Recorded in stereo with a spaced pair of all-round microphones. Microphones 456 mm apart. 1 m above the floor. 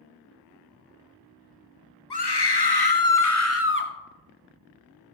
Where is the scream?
60° left (ahead or behind), 1.1 m; by 3.9 s 20° left (ahead or behind), 1.3 m.